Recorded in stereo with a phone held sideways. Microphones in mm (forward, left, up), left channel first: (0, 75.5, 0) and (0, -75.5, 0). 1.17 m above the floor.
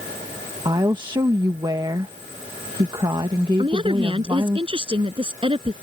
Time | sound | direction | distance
0.7 | a woman speaking | 30° right (ahead or behind) | ?
3.6 | a woman speaking | 35° right (ahead or behind) | ?